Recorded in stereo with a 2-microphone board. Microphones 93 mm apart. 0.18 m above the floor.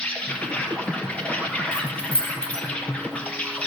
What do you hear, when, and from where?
0.0 s an insect: 15° left (ahead or behind), 1.8 m
1.7 s keys jangling: 10° left (ahead or behind), 2.5 m